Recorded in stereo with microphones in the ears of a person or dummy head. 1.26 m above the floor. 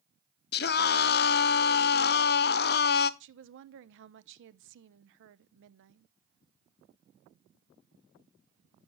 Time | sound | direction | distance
0.5 | a scream | 50° left (ahead or behind) | 0.6 m
3.2 | a woman speaking | 60° right (ahead or behind) | 0.7 m